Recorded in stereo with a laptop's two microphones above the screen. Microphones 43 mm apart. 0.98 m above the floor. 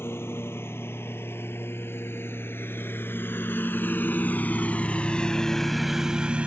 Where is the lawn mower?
65° left (ahead or behind); by 6.5 s 30° right (ahead or behind).